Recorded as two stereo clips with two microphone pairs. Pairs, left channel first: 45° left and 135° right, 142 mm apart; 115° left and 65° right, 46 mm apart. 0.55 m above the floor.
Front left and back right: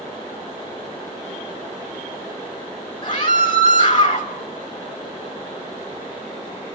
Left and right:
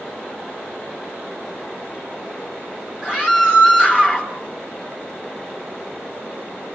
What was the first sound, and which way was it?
A scream, 10° left.